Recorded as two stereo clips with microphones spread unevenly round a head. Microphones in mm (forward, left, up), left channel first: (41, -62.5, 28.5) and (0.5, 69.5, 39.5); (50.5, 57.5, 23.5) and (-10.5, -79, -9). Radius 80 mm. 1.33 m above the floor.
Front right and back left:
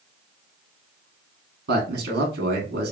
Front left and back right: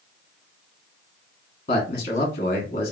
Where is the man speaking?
120° left, 0.9 m.